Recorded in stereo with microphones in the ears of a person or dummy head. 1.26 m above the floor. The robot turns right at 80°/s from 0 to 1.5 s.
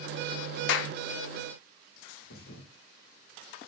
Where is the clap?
70° left (ahead or behind), 0.5 m; by 0.9 s 85° left, 0.5 m.